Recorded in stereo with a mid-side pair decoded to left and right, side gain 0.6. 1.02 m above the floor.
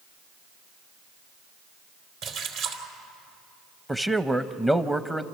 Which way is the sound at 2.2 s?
65° right.